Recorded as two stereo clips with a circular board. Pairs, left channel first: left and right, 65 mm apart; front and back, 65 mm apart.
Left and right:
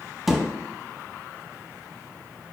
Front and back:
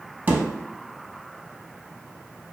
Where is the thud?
175° right, 0.5 m.